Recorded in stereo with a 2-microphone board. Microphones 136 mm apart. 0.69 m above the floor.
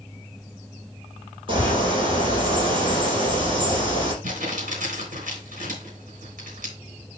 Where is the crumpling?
75° right (ahead or behind), 4 m.